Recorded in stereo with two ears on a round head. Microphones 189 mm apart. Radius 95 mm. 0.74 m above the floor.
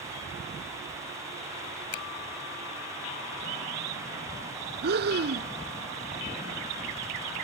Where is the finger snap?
85° left.